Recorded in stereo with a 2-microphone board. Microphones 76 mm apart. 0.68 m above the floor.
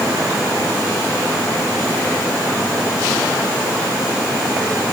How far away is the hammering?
I don't hear hammering.